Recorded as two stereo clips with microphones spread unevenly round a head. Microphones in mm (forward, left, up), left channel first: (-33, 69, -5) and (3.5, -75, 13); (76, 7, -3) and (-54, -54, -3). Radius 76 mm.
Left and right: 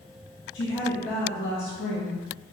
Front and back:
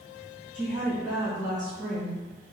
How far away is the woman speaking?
About 2 m.